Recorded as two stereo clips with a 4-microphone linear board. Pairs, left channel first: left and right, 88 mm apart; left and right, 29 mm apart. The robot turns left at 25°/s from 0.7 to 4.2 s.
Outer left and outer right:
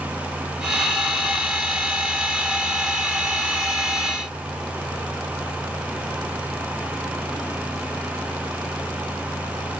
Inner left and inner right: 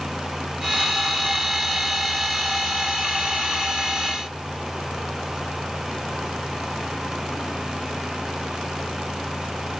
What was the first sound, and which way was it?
Only background noise.